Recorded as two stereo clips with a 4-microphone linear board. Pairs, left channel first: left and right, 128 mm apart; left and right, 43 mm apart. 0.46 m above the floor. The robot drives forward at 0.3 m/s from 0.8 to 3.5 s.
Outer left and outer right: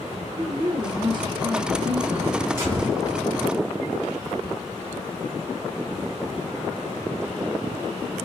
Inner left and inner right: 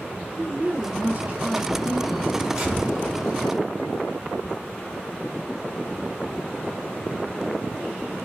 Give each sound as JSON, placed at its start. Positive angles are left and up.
{"t": 0.4, "sound": "a woman speaking", "side_deg": -40, "distance_m": 0.9}
{"t": 2.6, "sound": "a gunshot", "side_deg": -20, "distance_m": 1.6}